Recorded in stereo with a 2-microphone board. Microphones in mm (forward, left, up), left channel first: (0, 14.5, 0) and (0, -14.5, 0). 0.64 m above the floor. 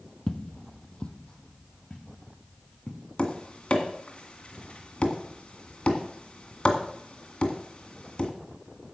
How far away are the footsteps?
About 0.8 m.